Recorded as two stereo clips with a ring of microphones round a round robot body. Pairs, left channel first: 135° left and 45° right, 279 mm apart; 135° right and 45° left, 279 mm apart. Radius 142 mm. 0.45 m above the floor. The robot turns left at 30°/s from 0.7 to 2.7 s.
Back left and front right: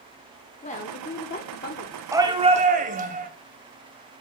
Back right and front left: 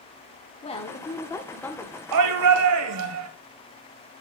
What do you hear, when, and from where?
0.6 s a woman speaking: 175° left, 1.1 m; by 2.0 s 135° left, 1.1 m
2.1 s a shout: 35° left, 2 m; by 3.3 s 15° left, 2 m